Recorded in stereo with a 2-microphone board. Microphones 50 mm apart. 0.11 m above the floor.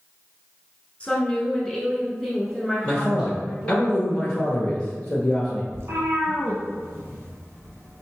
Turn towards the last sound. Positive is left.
turn(degrees=-55)  # may be behind; listen again after turning